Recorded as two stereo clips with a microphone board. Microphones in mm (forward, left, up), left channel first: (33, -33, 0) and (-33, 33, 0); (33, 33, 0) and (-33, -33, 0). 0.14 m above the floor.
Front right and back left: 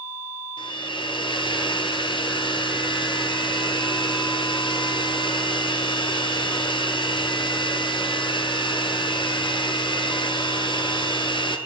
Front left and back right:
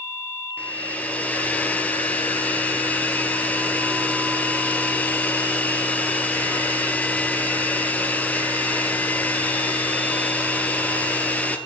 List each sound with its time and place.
0.6 s a hair dryer: 25° right, 1.0 m